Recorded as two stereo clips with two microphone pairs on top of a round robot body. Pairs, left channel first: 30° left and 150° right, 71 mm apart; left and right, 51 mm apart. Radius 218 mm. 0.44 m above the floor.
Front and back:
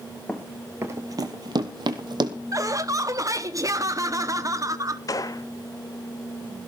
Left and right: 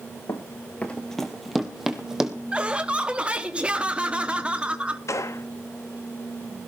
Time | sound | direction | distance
0.3 | running footsteps | 100° left | 0.6 m
2.5 | laughter | 150° right | 1.2 m
5.1 | a gunshot | 70° left | 1.0 m